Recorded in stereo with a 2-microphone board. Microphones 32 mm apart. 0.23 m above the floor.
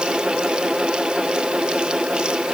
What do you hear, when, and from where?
Only background noise.